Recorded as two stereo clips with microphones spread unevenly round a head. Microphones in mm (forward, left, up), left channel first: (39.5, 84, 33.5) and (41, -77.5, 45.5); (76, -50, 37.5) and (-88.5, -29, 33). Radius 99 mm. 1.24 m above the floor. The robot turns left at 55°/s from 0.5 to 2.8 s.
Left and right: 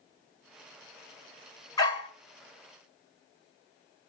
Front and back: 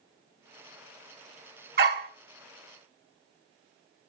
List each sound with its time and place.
1.8 s a dog barking: 165° left, 1.3 m; by 2.1 s 145° left, 1.3 m